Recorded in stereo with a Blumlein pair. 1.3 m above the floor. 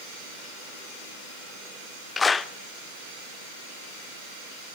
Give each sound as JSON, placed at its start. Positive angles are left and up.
{"t": 2.2, "sound": "a clap", "azimuth_deg": 15, "distance_m": 0.7}